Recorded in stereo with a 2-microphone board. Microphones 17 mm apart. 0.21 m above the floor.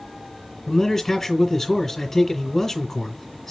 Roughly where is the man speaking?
Centre.